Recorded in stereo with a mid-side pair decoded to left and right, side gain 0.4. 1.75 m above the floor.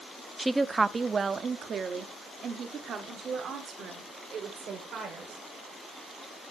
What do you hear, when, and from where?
0.4 s a woman speaking: 10° right, 0.5 m; by 5.5 s 75° right, 3 m